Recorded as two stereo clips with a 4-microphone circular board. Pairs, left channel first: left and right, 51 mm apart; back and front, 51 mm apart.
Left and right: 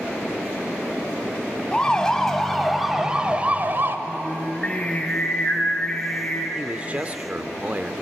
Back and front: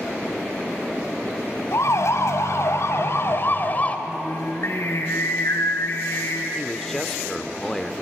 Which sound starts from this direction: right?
A man speaking, at 6.5 s.